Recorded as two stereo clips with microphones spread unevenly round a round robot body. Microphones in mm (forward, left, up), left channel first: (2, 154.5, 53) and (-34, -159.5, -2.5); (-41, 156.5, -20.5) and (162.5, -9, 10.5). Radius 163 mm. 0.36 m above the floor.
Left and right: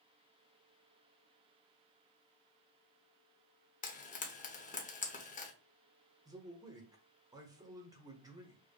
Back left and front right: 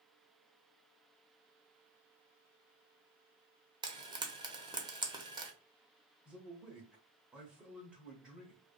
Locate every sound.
3.8 s frying: 25° left, 0.9 m
6.2 s a man speaking: 135° right, 1.0 m